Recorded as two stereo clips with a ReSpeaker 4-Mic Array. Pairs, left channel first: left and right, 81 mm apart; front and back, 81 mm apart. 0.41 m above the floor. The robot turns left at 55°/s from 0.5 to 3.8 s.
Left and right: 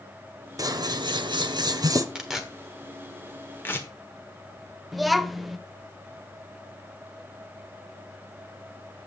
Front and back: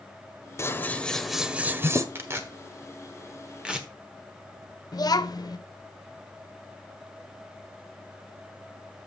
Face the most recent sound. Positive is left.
turn(degrees=0)